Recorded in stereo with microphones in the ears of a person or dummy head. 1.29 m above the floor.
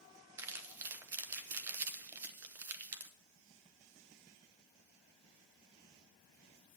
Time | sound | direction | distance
0.4 | crumpling | 15° right (ahead or behind) | 0.9 m